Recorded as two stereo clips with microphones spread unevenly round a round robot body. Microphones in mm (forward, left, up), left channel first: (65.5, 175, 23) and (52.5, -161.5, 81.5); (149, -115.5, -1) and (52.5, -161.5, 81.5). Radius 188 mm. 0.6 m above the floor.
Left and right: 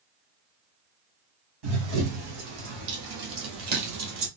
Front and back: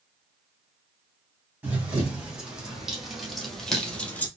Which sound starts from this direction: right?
Running footsteps, at 1.6 s.